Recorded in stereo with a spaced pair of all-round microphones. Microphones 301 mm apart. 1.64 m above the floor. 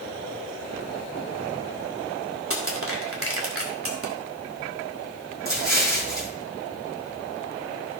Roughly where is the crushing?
Right.